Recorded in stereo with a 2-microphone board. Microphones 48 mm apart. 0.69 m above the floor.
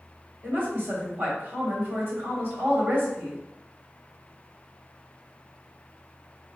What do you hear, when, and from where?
0.4 s a woman speaking: 40° right (ahead or behind), 2.5 m